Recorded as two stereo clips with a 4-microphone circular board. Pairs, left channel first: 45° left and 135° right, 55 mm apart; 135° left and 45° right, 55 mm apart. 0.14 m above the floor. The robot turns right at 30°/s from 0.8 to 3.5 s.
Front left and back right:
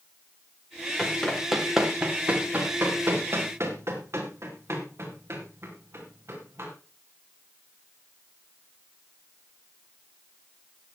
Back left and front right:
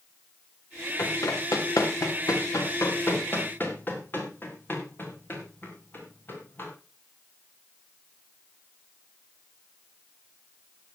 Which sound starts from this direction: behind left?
Running footsteps, at 1.0 s.